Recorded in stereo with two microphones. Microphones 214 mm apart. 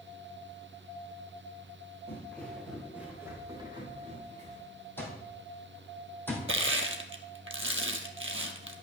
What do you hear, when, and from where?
2.1 s footsteps: 10° left (ahead or behind), 3.5 m; by 4.6 s 35° right (ahead or behind), 3 m
5.0 s an alarm clock: 10° left (ahead or behind), 2.5 m
6.5 s crushing: 70° right (ahead or behind), 1.0 m